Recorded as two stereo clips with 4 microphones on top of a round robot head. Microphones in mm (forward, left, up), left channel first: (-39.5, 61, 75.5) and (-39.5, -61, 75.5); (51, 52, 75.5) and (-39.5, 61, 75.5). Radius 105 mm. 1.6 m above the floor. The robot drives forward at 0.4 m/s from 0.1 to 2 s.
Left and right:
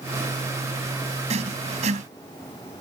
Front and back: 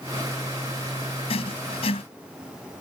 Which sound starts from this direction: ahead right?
Writing, at 1.3 s.